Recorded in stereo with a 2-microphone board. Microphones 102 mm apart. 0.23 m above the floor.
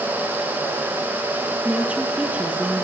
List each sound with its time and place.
1.6 s a woman speaking: 15° right (ahead or behind), 7 m